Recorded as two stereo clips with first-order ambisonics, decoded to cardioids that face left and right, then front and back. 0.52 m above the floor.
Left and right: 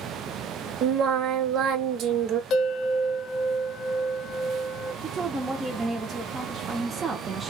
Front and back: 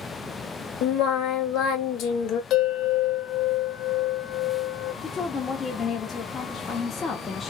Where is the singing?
40° right, 0.9 m.